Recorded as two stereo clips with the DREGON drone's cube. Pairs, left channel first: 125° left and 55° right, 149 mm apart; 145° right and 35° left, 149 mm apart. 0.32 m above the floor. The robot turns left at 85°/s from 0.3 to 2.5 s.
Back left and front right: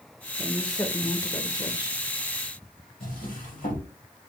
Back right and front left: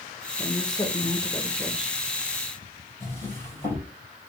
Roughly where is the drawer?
Behind left.